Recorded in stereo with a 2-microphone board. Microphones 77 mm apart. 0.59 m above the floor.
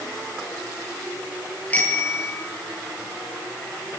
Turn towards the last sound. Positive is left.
turn(degrees=20)  # may be behind; listen again after turning